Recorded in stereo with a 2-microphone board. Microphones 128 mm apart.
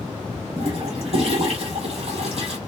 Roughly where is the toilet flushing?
Right.